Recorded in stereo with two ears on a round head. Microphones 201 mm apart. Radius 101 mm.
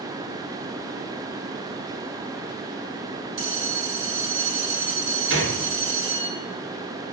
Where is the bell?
50° right (ahead or behind), 2 m.